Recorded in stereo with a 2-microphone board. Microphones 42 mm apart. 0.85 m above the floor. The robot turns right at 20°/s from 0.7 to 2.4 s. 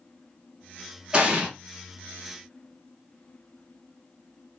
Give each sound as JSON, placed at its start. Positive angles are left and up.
{"t": 1.1, "sound": "an explosion", "side_deg": -25, "distance_m": 0.8}